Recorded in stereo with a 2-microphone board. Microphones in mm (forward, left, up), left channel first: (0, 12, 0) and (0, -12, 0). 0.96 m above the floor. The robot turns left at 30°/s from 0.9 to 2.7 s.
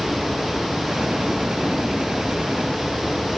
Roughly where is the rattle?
I don't hear a rattle.